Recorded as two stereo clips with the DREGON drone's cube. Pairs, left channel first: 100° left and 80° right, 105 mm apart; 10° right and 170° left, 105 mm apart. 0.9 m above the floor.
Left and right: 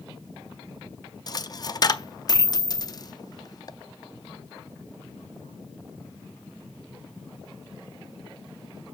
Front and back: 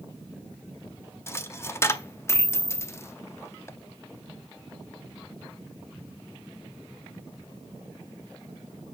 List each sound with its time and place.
1.3 s a dropped coin: 50° left, 0.5 m